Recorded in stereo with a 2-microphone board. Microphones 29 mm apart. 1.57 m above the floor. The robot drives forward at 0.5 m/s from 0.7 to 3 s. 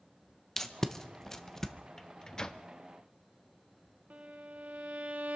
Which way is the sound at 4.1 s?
50° right (ahead or behind).